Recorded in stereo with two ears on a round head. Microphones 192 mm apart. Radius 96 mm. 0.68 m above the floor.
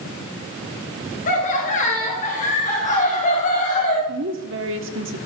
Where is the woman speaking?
60° right (ahead or behind), 1.5 m.